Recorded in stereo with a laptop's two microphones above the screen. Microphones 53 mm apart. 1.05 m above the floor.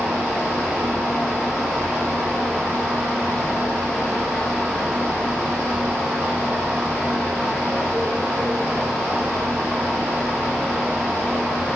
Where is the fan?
5° left (ahead or behind), 1.5 m.